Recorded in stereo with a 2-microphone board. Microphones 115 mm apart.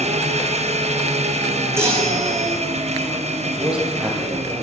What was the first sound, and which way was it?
An engine running, 75° right (ahead or behind).